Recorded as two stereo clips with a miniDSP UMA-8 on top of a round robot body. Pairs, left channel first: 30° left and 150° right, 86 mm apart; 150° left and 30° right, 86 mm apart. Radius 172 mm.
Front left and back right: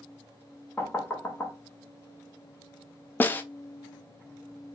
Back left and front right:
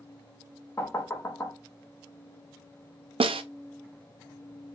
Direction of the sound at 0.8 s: 95° left.